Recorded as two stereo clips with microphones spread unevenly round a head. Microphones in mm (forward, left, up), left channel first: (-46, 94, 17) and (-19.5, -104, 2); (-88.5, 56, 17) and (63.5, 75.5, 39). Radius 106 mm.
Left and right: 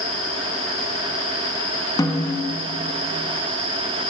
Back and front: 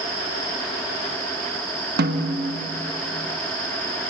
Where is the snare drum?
20° left, 1.5 m.